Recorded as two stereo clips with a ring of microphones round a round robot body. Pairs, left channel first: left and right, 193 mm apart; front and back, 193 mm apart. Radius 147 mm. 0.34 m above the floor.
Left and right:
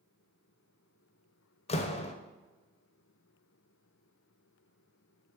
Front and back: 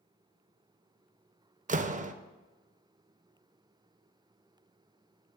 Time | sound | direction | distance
1.7 | a door slam | 140° left | 0.8 m